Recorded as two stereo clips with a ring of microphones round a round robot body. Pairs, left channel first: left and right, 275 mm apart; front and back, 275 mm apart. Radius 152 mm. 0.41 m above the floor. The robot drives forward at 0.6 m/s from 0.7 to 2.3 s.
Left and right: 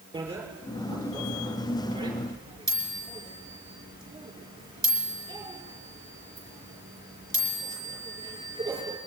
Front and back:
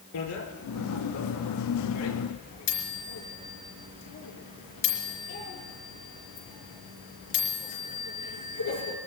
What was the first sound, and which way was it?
A bicycle bell, 15° right.